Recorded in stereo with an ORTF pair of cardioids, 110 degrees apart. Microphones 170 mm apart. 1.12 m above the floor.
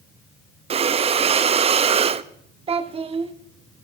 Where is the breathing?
35° right, 0.7 m.